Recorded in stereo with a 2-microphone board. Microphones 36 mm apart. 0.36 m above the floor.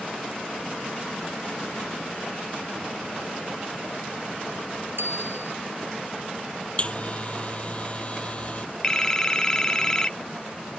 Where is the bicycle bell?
85° right.